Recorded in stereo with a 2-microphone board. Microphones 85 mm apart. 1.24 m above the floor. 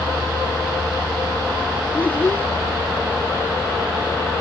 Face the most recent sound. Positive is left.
turn(degrees=20)  # may be behind; listen again after turning